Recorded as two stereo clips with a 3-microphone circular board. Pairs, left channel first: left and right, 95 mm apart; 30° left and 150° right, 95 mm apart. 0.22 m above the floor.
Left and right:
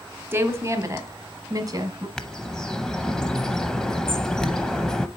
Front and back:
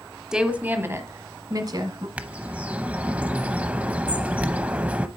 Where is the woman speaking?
75° right, 1.1 m; by 2.1 s 125° right, 1.7 m.